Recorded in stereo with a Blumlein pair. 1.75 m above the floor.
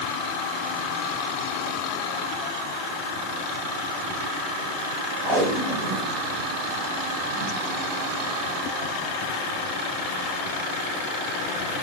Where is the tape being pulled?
30° right, 6.5 m.